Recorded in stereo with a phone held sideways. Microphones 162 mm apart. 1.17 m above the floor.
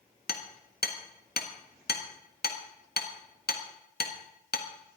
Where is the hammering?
80° left, 1.6 m.